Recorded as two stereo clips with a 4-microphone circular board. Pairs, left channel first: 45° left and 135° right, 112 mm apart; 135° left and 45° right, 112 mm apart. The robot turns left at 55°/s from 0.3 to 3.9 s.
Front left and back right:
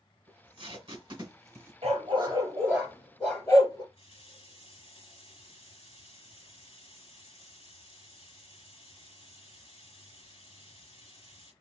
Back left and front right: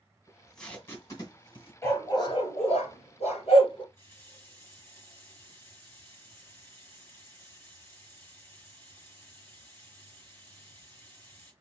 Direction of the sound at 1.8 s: 160° right.